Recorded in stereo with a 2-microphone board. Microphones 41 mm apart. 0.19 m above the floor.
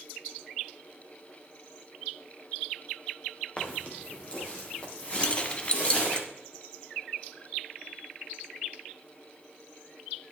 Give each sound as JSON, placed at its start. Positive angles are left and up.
{"t": 3.6, "sound": "footsteps", "side_deg": 25, "distance_m": 2.5}
{"t": 5.2, "sound": "keys jangling", "side_deg": 25, "distance_m": 0.8}